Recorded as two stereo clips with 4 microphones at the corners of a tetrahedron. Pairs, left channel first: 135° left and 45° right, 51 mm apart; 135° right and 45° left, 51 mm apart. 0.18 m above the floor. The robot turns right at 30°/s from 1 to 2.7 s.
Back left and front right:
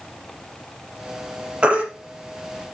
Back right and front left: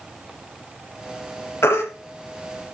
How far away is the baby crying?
About 3.5 m.